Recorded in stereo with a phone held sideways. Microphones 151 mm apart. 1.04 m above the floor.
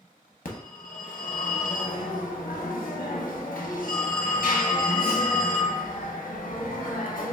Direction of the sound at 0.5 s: 70° left (ahead or behind).